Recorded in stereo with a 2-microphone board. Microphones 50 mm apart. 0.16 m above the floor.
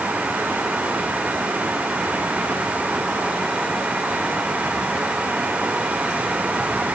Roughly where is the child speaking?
I don't hear a child speaking.